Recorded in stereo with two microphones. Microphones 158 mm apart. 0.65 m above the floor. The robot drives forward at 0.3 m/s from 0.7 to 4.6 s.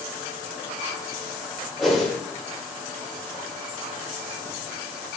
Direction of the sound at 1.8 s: Centre (ahead or behind).